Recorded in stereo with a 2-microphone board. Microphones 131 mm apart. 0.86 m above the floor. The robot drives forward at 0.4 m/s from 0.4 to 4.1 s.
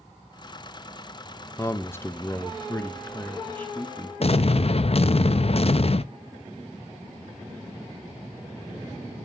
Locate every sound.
1.6 s a man speaking: 20° left (ahead or behind), 0.7 m; by 4.1 s 10° left (ahead or behind), 1.2 m
4.2 s an explosion: 50° left (ahead or behind), 0.5 m